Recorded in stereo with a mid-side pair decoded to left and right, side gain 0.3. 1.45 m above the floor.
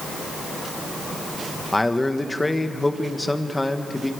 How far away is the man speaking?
About 1.7 m.